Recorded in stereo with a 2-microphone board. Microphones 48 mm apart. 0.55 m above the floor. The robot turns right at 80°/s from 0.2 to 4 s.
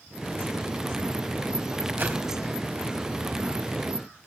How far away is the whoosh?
About 3.5 m.